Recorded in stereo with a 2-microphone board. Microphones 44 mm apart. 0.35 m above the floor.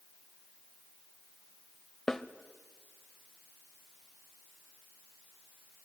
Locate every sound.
2.1 s a snare drum: 10° left (ahead or behind), 0.7 m